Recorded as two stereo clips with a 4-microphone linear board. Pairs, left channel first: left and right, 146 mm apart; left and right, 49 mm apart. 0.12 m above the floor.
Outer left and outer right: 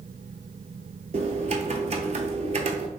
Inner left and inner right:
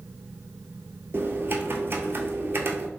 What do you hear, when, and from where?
1.1 s typing on a keyboard: 50° right (ahead or behind), 0.5 m